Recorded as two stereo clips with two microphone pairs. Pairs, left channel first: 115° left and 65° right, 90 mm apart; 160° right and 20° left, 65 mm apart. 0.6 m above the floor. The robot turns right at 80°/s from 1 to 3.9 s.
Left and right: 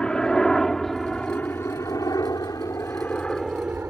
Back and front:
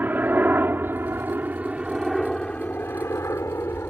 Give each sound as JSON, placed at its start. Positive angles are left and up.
{"t": 0.0, "sound": "a helicopter", "azimuth_deg": 45}